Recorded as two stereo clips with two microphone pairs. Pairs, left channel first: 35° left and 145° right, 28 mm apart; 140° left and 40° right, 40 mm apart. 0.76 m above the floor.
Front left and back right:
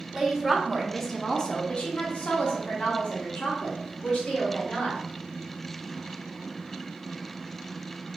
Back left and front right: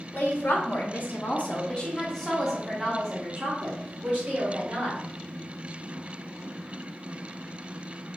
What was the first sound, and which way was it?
A woman speaking, 145° left.